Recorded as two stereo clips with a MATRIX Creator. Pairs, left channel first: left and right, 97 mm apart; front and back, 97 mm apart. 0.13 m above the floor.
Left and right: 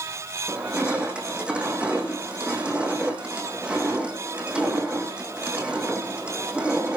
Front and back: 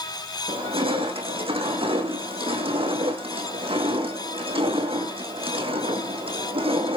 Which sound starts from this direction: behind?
Crushing, at 0.5 s.